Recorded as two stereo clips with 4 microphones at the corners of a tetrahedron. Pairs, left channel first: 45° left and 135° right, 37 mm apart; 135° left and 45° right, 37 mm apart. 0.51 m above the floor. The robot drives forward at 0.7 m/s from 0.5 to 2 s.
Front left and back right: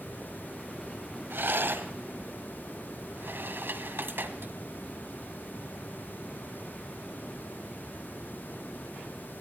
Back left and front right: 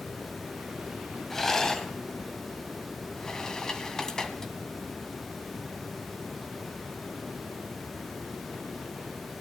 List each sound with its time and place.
1.3 s a rattle: 145° right, 1.2 m; by 4.5 s 155° right, 1.6 m